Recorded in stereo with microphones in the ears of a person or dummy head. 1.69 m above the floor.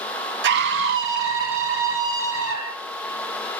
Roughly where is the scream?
Right.